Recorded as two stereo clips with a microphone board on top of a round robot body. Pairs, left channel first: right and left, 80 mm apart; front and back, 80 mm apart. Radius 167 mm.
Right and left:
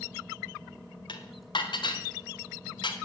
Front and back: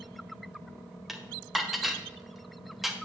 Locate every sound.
1.1 s dishes clattering: 95° right, 1.6 m